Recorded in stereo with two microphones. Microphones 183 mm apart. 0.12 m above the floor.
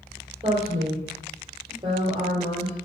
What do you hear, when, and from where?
0.4 s a woman speaking: 35° right (ahead or behind), 4 m